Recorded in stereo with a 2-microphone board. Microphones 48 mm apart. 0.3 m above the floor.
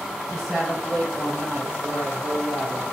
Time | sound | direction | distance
0.3 | a woman speaking | 5° right (ahead or behind) | 1.6 m